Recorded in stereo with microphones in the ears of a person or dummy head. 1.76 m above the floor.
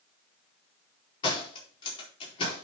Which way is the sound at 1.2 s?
30° left (ahead or behind).